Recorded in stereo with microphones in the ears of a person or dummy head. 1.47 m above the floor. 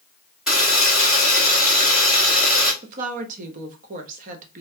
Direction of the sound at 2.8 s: 50° right (ahead or behind).